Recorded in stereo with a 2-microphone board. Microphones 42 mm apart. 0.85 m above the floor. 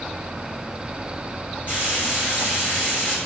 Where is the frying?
50° left (ahead or behind), 3 m.